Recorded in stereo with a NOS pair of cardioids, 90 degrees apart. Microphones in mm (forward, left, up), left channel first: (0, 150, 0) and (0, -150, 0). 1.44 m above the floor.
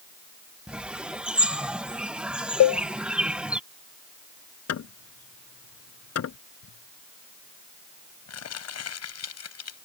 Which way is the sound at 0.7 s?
5° right.